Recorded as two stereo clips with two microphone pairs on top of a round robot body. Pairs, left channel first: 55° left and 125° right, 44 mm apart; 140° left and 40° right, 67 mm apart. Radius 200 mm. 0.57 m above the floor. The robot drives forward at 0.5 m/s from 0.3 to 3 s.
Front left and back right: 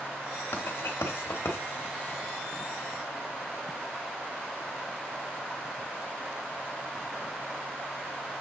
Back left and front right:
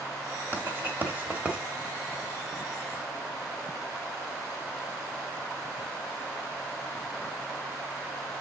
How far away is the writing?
About 1.3 m.